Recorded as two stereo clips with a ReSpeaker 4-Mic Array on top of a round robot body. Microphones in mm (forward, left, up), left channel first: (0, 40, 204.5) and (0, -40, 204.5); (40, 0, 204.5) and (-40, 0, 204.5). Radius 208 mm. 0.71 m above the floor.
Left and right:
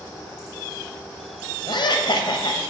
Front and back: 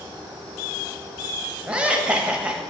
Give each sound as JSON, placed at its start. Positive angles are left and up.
{"t": 1.7, "sound": "laughter", "azimuth_deg": 105, "distance_m": 1.2}